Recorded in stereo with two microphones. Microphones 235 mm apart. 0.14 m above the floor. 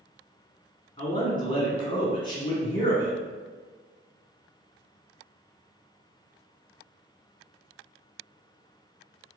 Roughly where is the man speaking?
Centre.